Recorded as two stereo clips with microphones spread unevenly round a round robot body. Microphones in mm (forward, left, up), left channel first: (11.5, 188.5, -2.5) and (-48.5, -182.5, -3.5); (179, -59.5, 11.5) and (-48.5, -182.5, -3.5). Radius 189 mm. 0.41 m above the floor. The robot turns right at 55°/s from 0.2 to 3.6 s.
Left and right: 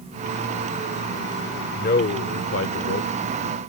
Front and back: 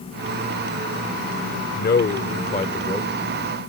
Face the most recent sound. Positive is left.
turn(degrees=135)